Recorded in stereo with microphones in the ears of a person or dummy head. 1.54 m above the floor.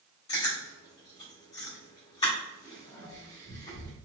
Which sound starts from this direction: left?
Chewing, at 0.3 s.